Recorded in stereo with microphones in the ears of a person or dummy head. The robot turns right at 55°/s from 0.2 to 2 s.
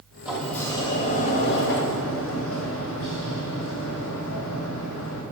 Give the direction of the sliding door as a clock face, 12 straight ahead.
12 o'clock.